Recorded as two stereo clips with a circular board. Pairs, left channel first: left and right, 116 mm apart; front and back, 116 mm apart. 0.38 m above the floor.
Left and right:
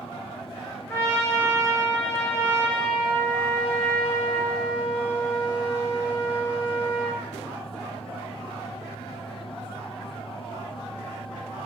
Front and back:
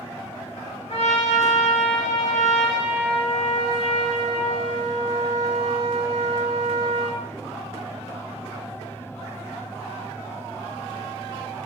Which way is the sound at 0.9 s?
20° left.